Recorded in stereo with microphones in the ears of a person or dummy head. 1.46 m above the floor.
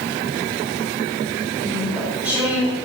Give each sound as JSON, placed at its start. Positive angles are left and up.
{"t": 1.6, "sound": "chewing", "side_deg": -10, "distance_m": 4.0}